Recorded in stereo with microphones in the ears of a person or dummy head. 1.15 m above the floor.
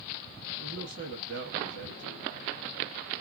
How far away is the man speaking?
About 1.7 m.